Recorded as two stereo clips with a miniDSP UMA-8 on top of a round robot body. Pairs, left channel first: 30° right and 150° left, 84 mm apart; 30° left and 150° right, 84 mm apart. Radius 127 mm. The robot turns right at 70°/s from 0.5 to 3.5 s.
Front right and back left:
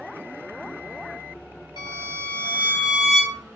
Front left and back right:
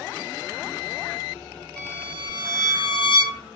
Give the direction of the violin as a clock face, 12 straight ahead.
2 o'clock.